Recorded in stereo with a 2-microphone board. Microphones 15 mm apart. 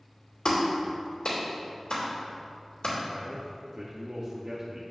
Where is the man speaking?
55° right (ahead or behind), 0.8 m.